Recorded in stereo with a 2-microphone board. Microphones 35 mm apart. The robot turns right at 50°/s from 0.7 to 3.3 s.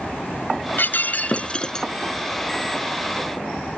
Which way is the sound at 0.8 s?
115° left.